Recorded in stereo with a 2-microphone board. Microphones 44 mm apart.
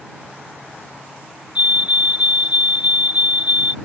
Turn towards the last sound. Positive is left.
turn(degrees=-30)  # may be behind; listen again after turning